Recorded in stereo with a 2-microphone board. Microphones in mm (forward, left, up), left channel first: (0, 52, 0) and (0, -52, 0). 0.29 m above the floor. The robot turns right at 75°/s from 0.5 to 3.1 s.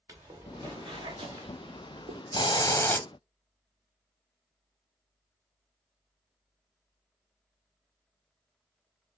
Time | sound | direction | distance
0.1 | footsteps | 30° right (ahead or behind) | 1.9 m
2.3 | a hiss | 115° left | 0.8 m